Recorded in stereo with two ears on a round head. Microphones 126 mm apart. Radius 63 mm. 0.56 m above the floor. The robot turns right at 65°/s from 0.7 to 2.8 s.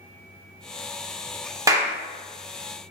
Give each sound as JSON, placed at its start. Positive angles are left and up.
{"t": 1.7, "sound": "a clap", "side_deg": -25, "distance_m": 0.6}